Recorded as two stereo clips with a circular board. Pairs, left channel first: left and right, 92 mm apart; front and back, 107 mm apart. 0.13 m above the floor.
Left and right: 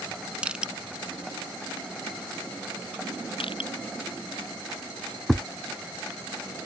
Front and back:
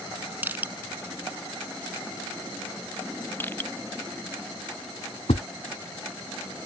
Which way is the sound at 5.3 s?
Straight ahead.